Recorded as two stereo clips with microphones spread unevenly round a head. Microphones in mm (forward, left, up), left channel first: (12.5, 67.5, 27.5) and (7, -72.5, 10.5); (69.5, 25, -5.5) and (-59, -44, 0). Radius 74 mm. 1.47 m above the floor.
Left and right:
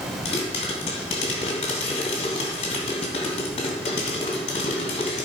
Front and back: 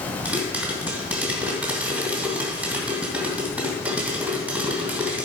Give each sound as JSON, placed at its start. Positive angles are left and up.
{"t": 0.2, "sound": "a pop", "azimuth_deg": 130, "distance_m": 2.5}